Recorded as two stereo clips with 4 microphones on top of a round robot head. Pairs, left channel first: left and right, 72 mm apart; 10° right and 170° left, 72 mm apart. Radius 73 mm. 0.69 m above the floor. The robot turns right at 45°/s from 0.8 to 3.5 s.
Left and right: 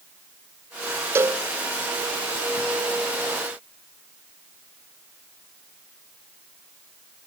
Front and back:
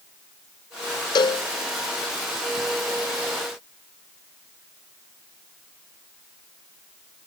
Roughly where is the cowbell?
Ahead right.